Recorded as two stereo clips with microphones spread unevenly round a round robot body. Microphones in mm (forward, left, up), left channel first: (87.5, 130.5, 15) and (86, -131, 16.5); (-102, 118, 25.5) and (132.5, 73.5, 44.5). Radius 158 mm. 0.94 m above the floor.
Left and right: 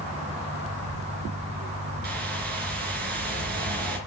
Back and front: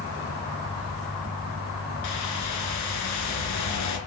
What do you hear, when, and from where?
2.0 s a whoosh: 150° right, 3 m